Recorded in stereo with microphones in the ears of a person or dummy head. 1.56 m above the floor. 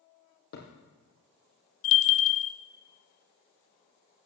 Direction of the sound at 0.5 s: 50° left (ahead or behind).